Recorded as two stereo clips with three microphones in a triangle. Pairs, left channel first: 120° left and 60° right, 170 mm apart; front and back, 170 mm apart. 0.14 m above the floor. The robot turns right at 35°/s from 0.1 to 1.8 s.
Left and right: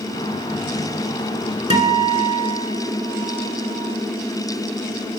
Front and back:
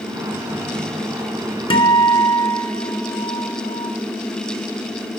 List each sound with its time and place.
1.7 s a guitar: 40° right, 1.3 m; by 3.9 s 35° right, 1.3 m